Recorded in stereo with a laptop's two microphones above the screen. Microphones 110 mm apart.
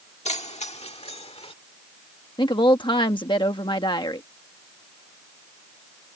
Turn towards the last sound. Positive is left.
turn(degrees=45)  # may be behind; listen again after turning